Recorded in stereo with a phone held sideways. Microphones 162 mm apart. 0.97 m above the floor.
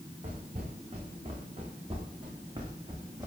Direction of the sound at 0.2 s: 45° right (ahead or behind).